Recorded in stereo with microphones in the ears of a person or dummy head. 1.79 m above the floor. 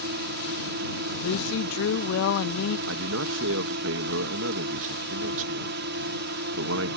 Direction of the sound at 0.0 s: 60° right (ahead or behind).